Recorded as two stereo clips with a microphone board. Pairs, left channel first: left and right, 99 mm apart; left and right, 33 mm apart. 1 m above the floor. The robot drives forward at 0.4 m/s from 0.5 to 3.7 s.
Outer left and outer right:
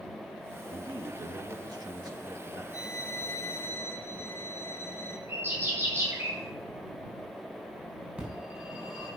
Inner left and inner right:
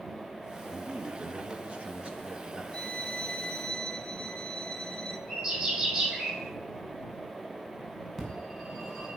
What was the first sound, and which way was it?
A man speaking, 55° right (ahead or behind).